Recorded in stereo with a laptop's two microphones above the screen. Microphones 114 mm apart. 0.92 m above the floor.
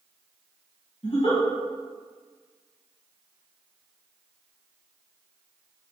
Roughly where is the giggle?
Left.